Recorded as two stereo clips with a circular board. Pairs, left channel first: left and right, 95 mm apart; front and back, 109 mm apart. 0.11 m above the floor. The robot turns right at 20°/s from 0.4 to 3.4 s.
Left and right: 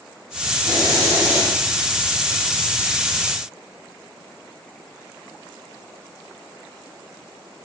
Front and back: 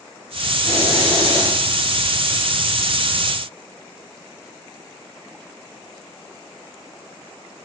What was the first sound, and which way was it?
A hiss, 40° right.